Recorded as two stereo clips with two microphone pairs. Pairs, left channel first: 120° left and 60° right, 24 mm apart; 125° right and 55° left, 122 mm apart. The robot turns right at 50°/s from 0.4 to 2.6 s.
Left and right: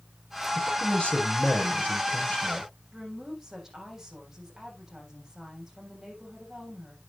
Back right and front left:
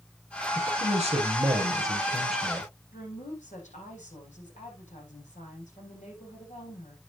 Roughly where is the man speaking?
Ahead left.